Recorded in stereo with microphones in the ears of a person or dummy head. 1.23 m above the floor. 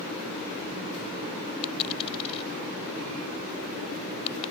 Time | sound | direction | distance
1.6 | a dropped coin | 30° left (ahead or behind) | ?